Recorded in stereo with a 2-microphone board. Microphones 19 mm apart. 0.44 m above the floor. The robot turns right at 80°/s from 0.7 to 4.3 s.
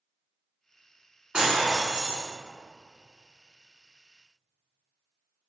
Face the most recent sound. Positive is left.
turn(degrees=110)